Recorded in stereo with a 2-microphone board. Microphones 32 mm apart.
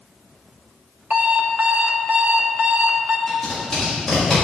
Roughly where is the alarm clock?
Right.